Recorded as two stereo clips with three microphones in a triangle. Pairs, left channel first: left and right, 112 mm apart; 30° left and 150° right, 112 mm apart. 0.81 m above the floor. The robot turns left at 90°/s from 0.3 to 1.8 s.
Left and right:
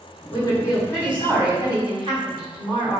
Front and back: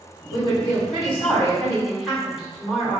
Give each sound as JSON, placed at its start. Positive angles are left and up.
{"t": 0.3, "sound": "a woman speaking", "azimuth_deg": 80, "distance_m": 1.9}